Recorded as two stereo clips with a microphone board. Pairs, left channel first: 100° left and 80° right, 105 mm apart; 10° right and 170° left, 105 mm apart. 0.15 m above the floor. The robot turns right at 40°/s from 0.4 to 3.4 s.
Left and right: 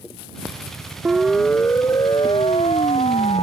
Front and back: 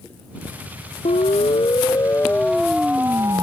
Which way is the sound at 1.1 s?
Straight ahead.